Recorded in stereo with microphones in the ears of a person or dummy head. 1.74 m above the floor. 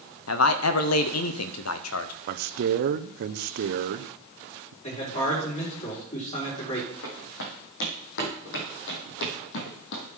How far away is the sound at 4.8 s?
About 4.5 m.